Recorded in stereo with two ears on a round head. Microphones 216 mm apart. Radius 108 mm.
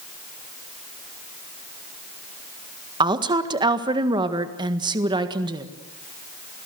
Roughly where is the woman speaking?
Centre.